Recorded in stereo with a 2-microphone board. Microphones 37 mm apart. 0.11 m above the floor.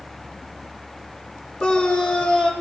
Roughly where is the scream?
Centre.